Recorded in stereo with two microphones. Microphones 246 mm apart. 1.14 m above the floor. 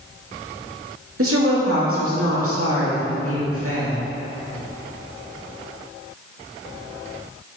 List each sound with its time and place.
1.2 s a woman speaking: 65° right (ahead or behind), 1.9 m